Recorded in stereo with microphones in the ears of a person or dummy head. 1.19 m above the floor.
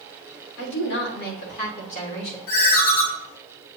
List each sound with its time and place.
0.6 s a woman speaking: 70° left (ahead or behind), 3 m; by 2.4 s 35° left (ahead or behind), 3.5 m
2.5 s a ringtone: 70° left (ahead or behind), 3 m